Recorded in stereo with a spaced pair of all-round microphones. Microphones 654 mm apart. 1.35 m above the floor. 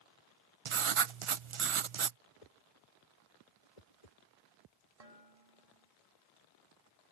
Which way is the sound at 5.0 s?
60° right (ahead or behind).